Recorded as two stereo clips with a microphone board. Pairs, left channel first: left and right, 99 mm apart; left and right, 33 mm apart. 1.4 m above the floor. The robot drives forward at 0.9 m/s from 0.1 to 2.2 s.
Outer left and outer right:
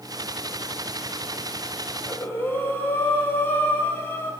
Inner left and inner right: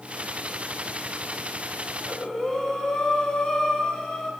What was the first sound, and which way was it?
Breathing, 20° left (ahead or behind).